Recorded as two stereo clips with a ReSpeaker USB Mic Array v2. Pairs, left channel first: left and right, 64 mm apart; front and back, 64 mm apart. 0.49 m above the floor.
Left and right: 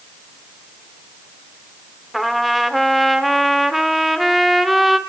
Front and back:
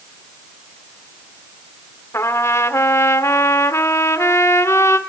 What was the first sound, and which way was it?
A trumpet, 5° right.